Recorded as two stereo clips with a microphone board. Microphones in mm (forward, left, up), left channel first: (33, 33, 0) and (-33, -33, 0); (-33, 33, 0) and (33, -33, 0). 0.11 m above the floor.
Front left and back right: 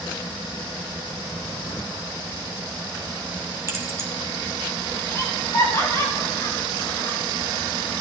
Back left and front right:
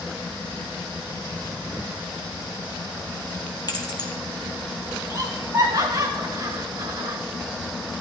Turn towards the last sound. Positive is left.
turn(degrees=0)